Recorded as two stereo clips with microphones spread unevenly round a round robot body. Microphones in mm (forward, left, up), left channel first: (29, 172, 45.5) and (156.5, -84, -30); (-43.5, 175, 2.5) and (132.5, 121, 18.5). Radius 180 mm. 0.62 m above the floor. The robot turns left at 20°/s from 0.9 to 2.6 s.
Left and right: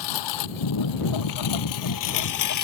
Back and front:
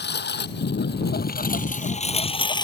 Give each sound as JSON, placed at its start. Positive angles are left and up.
{"t": 0.0, "sound": "a lawn mower", "azimuth_deg": 130}